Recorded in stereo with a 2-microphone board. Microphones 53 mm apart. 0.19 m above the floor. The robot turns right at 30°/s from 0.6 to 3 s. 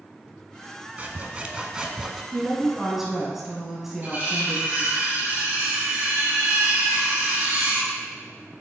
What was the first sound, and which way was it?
Sawing, 40° right.